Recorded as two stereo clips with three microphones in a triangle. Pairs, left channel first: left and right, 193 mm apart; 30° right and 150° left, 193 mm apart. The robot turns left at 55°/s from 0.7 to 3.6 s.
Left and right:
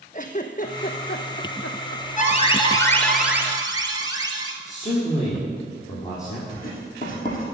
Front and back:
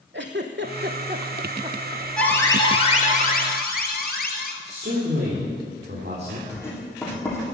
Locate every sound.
0.1 s a giggle: 135° left, 0.9 m; by 2.0 s 60° left, 0.9 m
2.2 s an alarm: 55° left, 1.3 m; by 4.5 s 25° right, 1.3 m
4.6 s a man speaking: 135° left, 3.5 m
6.5 s writing: 45° left, 3.5 m